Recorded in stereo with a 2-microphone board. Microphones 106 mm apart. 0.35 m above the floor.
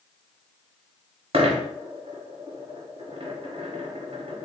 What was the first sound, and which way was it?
A dropped coin, 75° right (ahead or behind).